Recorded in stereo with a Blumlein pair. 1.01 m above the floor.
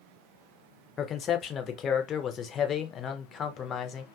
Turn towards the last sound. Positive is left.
turn(degrees=25)